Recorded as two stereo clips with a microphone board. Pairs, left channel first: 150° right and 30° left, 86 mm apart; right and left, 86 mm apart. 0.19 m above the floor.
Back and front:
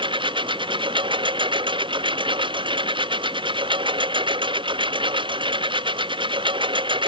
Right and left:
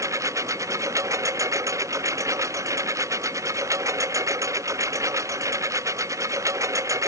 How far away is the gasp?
No gasp in this recording.